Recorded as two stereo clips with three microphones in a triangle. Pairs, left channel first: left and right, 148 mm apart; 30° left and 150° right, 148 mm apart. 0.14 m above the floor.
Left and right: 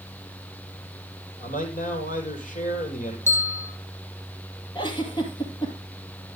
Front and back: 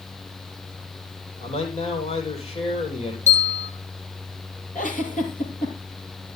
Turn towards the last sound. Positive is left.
turn(degrees=35)